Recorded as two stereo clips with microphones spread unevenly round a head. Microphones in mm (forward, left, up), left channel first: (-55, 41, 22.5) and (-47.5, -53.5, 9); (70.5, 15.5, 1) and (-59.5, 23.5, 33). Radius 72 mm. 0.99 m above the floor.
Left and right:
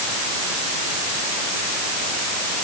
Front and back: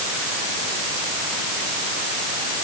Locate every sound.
Only background noise.